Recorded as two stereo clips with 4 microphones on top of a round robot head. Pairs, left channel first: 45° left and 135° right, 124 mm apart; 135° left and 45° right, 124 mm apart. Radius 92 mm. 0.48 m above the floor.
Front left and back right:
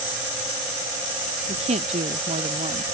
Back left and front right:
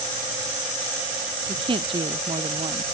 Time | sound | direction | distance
1.5 | a woman speaking | 100° right | ?